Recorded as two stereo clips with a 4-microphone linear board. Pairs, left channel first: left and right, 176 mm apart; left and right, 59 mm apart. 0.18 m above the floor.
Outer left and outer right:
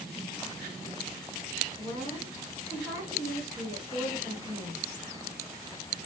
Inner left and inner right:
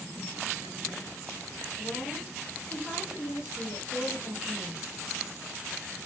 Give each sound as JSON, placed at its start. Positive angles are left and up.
{"t": 1.8, "sound": "a woman speaking", "side_deg": -15, "distance_m": 1.8}